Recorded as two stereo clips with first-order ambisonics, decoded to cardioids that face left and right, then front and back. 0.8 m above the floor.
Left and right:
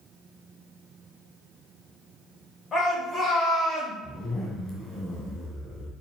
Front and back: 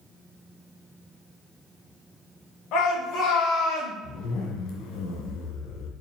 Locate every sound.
2.7 s a shout: 30° left, 3.5 m; by 3.9 s 15° left, 3 m
4.0 s a zipper: 20° left, 1.9 m